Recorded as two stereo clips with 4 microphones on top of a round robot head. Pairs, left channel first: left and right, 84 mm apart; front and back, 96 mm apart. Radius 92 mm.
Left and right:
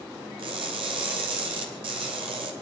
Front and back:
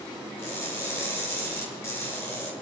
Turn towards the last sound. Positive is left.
turn(degrees=-70)